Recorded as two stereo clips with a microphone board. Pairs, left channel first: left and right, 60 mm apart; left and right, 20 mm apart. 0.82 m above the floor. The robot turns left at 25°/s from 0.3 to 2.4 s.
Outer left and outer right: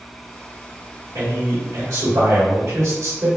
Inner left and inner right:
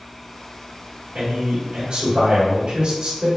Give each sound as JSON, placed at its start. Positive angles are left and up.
{"t": 1.1, "sound": "a man speaking", "azimuth_deg": -90, "distance_m": 1.4}